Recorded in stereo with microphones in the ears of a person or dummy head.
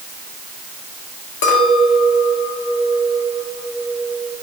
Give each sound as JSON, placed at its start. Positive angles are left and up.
{"t": 1.4, "sound": "a clink", "side_deg": 60, "distance_m": 2.0}